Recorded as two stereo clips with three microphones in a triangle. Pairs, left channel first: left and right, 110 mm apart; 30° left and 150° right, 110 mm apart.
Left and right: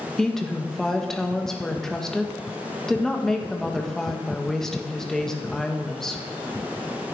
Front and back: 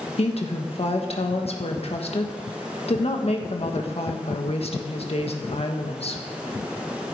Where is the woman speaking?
5° left, 1.6 m.